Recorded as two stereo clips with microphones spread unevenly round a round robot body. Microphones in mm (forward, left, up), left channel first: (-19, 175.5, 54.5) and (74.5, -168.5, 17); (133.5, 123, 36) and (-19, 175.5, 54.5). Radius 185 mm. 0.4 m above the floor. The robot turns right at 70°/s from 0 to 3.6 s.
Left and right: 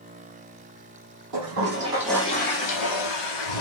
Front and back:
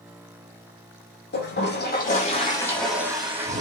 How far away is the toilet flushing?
About 9.5 m.